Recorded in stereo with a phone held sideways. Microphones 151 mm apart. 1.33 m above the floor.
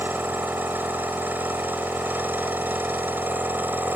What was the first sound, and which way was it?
A machine running, 15° right (ahead or behind).